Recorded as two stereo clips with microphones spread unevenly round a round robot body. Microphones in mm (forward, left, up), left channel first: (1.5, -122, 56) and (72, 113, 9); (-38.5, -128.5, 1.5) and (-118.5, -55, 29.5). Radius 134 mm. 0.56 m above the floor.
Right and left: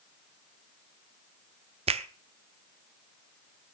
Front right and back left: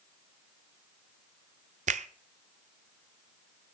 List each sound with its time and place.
1.9 s a finger snap: 130° left, 0.7 m